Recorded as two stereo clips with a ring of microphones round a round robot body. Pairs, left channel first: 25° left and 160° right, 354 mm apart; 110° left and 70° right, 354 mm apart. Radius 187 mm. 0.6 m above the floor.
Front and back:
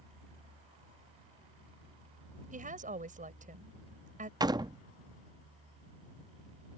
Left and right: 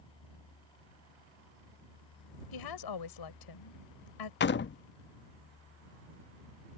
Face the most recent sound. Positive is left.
turn(degrees=135)